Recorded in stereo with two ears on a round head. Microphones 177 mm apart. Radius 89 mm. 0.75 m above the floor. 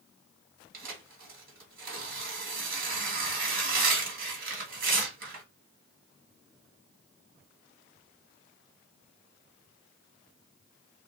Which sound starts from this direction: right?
Tearing paper, at 0.7 s.